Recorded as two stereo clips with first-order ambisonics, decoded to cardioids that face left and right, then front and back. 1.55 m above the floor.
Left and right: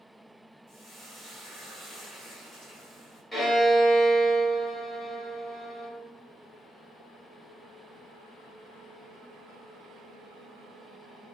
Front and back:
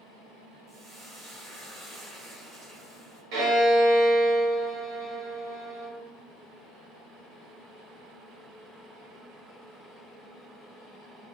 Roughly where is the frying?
Behind left.